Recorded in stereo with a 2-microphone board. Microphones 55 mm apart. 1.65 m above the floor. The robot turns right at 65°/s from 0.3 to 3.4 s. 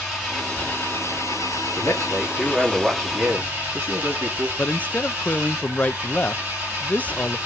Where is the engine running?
10° left, 8.5 m; by 7.5 s 150° right, 8.5 m.